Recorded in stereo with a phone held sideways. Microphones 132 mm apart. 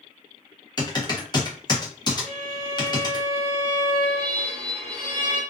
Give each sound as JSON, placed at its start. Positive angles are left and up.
{"t": 0.8, "sound": "typing on a keyboard", "side_deg": 30, "distance_m": 0.8}
{"t": 2.2, "sound": "a violin", "side_deg": -45, "distance_m": 0.9}